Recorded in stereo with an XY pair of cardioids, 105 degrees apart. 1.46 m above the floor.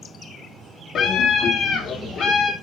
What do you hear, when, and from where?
0.9 s a scream: 55° left, 2.5 m; by 2.5 s 60° left, 4 m